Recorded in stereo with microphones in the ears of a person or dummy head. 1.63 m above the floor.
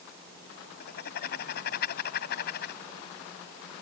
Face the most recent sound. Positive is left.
turn(degrees=60)  # may be behind; listen again after turning